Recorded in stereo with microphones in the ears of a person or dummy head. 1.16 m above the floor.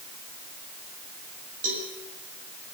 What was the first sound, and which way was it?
A cowbell, 45° right (ahead or behind).